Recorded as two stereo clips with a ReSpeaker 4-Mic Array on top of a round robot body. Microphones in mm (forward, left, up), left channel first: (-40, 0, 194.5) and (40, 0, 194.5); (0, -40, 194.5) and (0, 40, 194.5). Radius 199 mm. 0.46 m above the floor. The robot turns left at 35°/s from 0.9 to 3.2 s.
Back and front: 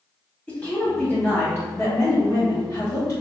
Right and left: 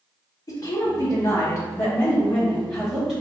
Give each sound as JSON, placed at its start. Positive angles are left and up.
{"t": 0.5, "sound": "a woman speaking", "azimuth_deg": -105, "distance_m": 1.5}